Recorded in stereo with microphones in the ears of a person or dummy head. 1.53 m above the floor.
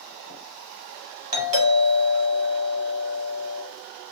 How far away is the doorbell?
About 1.7 m.